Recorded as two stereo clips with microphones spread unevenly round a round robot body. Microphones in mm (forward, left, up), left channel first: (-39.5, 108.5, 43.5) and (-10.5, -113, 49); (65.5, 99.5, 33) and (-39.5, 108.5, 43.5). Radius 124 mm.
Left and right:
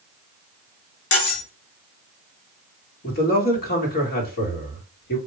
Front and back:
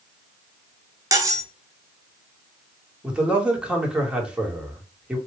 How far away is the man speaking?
About 1.4 m.